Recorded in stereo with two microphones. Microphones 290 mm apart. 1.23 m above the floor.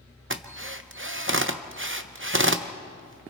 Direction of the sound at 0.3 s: 45° right (ahead or behind).